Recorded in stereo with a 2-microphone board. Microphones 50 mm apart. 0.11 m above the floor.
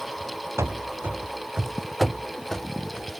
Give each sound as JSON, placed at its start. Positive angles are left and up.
{"t": 0.6, "sound": "running footsteps", "side_deg": -75}